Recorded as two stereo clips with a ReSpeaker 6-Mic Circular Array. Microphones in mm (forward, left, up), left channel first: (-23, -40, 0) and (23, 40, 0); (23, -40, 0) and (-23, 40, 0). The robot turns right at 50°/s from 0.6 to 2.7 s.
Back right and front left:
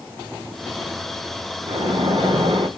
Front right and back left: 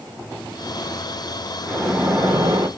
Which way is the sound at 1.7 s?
40° left.